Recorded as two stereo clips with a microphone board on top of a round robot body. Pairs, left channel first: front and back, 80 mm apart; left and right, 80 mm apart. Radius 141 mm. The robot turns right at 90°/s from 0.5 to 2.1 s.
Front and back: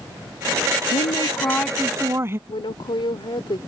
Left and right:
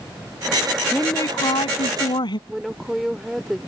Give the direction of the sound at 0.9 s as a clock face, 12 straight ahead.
12 o'clock.